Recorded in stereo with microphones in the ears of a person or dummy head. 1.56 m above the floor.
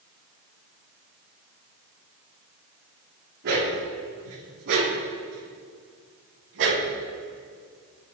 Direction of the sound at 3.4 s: 60° right (ahead or behind).